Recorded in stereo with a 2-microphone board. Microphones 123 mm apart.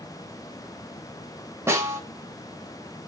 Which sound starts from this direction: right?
A snare drum, at 1.7 s.